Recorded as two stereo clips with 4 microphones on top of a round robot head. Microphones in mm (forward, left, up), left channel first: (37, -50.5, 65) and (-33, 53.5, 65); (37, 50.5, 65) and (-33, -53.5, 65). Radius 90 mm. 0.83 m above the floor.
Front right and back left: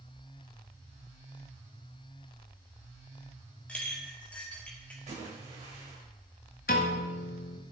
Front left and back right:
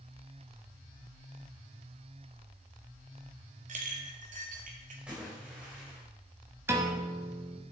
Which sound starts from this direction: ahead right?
A piano, at 6.7 s.